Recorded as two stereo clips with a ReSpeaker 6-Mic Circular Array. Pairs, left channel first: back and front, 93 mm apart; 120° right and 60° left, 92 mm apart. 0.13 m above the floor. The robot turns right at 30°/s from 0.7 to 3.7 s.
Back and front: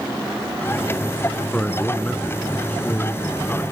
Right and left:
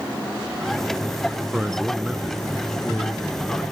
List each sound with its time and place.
1.5 s a man speaking: 130° left, 1.0 m; by 3.6 s 165° right, 1.0 m